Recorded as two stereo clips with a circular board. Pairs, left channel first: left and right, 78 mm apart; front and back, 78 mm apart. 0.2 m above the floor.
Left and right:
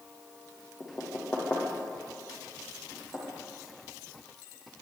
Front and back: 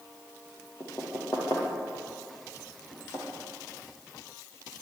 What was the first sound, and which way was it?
Knocking, 35° left.